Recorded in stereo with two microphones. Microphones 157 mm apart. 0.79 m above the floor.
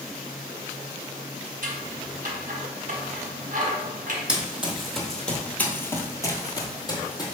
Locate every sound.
1.6 s scissors: 60° right (ahead or behind), 0.8 m
4.3 s running footsteps: 5° right (ahead or behind), 1.2 m; by 7.3 s 25° left (ahead or behind), 1.1 m